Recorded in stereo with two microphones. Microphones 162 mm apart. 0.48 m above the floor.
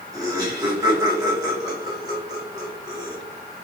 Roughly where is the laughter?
Right.